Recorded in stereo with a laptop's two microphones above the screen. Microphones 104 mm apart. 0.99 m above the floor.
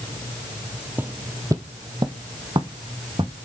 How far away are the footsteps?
About 1.4 m.